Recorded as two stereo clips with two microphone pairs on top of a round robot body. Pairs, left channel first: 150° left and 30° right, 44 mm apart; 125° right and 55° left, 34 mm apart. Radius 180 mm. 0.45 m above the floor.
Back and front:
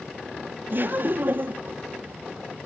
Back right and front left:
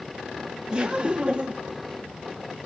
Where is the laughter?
Straight ahead, 1.9 m.